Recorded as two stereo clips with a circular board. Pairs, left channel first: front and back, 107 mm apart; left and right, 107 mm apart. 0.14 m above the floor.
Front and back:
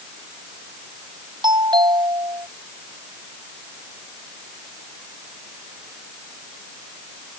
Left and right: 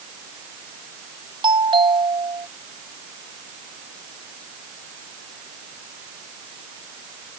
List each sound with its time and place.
1.4 s a doorbell: 135° right